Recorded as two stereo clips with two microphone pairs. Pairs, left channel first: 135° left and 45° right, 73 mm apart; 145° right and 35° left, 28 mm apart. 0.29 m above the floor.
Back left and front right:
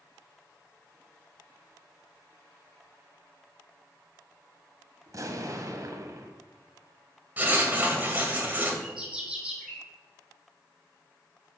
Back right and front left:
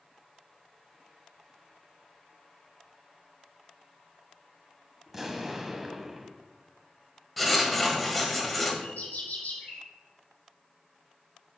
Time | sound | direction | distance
5.1 | an explosion | 40° right | 1.2 m
7.4 | writing | 60° right | 1.7 m
8.8 | a bird | 125° right | 2.5 m